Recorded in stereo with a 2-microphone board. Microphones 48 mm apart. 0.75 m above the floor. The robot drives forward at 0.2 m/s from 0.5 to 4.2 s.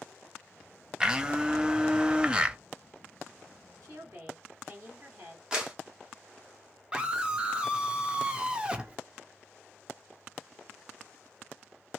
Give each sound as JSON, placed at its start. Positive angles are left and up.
{"t": 1.0, "sound": "a blender", "side_deg": -15, "distance_m": 0.6}
{"t": 3.8, "sound": "a woman speaking", "side_deg": -70, "distance_m": 2.0}
{"t": 5.5, "sound": "a clap", "side_deg": -15, "distance_m": 1.2}
{"t": 6.9, "sound": "a scream", "side_deg": -20, "distance_m": 0.6}